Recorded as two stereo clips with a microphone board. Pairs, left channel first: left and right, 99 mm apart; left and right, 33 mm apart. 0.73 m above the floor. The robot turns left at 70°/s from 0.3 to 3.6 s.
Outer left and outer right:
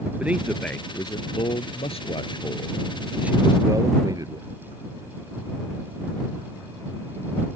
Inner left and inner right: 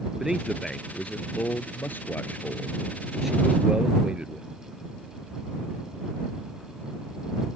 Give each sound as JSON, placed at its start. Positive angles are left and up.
{"t": 0.2, "sound": "a man speaking", "azimuth_deg": -165}